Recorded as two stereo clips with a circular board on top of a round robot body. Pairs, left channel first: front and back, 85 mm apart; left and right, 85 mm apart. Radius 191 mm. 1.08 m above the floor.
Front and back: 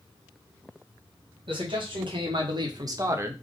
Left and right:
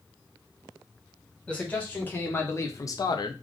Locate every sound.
1.5 s a man speaking: 165° left, 1.8 m; by 3.3 s 115° left, 0.7 m